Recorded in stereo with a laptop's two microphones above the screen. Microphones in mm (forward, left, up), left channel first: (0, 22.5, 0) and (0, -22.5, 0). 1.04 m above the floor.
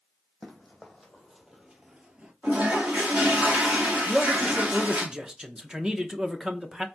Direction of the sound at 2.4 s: 25° right (ahead or behind).